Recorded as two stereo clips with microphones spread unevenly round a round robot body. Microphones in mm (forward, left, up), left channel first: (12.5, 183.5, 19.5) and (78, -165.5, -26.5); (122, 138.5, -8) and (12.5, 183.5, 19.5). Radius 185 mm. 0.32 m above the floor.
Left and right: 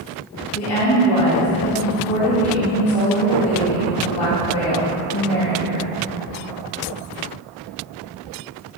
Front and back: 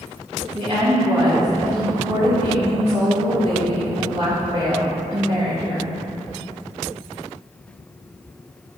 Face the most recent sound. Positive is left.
turn(degrees=125)